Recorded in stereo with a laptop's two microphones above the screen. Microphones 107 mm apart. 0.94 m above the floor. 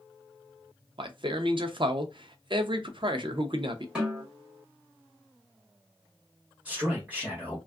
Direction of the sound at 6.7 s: 15° right (ahead or behind).